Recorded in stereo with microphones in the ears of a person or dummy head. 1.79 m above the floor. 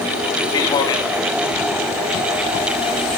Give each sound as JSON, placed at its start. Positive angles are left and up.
{"t": 0.5, "sound": "a man speaking", "side_deg": 20, "distance_m": 2.5}